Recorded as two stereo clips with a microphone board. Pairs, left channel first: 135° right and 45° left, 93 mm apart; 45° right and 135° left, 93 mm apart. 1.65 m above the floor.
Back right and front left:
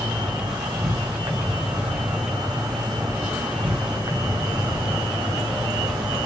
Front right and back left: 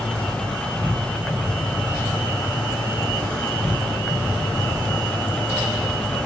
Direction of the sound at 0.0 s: 35° left.